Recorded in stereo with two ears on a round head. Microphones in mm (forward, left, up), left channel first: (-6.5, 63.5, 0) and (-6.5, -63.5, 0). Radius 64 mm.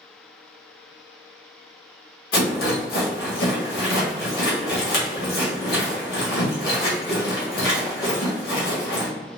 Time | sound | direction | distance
2.3 | a rattle | 75° left (ahead or behind) | 1.6 m